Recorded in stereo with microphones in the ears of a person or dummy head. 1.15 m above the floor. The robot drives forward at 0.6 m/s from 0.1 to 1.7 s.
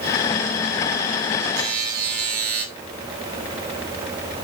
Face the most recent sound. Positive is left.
turn(degrees=-50)  # may be behind; listen again after turning